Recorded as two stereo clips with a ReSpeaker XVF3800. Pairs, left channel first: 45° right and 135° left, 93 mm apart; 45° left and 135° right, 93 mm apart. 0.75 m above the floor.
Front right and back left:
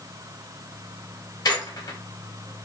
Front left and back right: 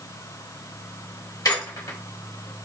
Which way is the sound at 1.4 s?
Straight ahead.